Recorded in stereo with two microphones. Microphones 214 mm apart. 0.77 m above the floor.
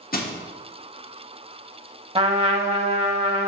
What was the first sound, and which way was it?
Crushing, 45° left (ahead or behind).